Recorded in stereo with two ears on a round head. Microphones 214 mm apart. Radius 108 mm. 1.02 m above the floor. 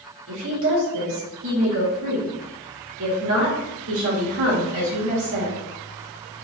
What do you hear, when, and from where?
0.3 s a woman speaking: 70° right (ahead or behind), 2 m